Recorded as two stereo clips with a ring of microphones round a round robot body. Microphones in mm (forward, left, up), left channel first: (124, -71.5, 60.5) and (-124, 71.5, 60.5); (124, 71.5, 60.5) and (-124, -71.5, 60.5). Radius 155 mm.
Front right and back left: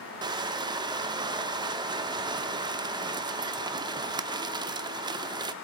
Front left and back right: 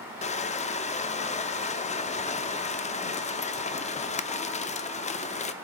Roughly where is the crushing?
Left.